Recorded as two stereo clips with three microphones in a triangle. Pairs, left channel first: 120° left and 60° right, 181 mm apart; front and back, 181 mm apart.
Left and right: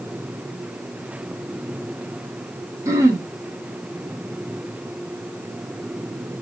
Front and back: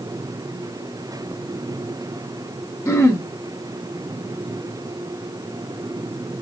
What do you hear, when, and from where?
2.9 s throat clearing: 30° right, 0.9 m